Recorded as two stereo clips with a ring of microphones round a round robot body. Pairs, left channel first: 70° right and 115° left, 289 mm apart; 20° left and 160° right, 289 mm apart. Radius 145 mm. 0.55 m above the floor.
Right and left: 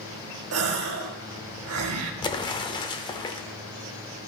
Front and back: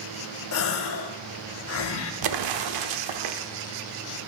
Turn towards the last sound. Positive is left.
turn(degrees=-145)